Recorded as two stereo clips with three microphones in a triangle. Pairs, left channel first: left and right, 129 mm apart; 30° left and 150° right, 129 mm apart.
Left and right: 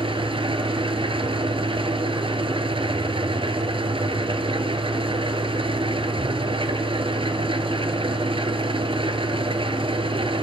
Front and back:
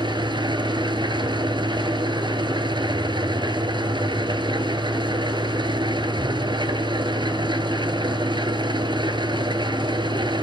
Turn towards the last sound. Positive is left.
turn(degrees=-115)